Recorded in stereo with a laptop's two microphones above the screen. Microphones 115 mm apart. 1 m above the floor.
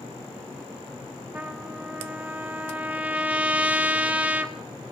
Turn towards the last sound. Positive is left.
turn(degrees=-10)  # may be behind; listen again after turning